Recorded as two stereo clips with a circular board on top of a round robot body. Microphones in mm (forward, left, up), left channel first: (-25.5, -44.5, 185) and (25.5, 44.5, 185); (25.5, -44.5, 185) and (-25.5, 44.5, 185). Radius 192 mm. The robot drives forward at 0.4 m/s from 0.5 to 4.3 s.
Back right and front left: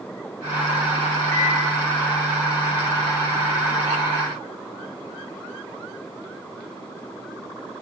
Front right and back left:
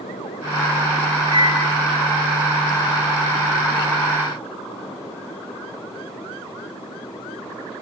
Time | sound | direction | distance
1.3 | a microwave | 60° right | 2.5 m